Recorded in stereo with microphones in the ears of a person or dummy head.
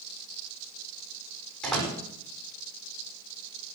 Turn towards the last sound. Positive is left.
turn(degrees=5)  # may be behind; listen again after turning